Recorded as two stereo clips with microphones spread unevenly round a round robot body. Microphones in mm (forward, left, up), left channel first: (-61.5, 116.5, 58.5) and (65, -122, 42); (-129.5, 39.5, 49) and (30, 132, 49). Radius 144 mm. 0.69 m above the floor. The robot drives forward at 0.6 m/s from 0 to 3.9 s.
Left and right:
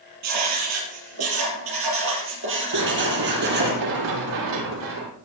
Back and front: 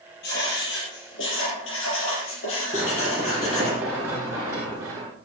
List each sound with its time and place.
0.2 s writing: 95° right, 4.5 m; by 3.7 s 120° right, 5 m
2.7 s running footsteps: 55° right, 6.5 m; by 5.1 s 50° right, 7 m